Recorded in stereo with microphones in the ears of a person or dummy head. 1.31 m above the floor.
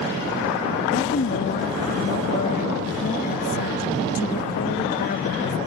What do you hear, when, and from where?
0.9 s a woman speaking: 50° left (ahead or behind)